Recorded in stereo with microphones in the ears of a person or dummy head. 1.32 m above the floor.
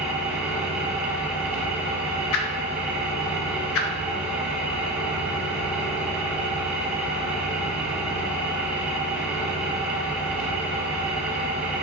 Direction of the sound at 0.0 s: Centre (ahead or behind).